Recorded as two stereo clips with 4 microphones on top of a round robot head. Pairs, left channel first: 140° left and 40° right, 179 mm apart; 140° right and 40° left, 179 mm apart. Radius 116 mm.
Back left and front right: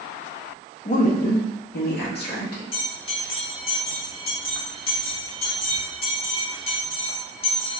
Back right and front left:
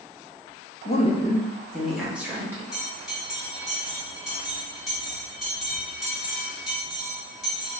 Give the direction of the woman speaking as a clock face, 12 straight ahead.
6 o'clock.